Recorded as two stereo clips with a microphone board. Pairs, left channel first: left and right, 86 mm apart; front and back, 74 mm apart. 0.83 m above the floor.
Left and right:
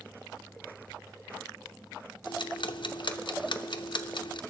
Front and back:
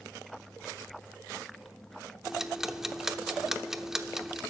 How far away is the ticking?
About 0.6 m.